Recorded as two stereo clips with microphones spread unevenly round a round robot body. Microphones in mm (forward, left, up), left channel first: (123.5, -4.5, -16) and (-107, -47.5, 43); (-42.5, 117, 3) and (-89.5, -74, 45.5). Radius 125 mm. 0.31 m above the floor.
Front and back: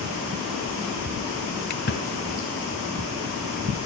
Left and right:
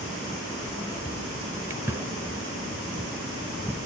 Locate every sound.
1.7 s a splash: 20° right, 1.0 m